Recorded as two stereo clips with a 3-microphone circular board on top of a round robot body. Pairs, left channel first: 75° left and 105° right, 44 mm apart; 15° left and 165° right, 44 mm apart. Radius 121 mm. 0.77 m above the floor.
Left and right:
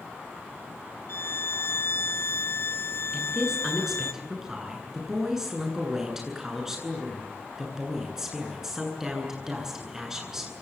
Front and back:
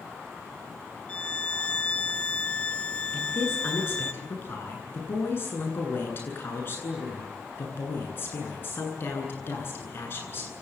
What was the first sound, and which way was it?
A violin, 75° left.